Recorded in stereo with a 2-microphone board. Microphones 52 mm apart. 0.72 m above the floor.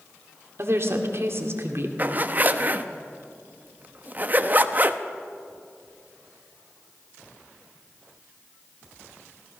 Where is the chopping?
I don't hear chopping.